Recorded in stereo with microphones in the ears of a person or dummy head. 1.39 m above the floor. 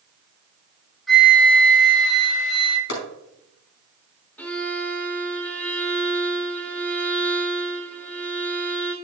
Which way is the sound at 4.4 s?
10° left (ahead or behind).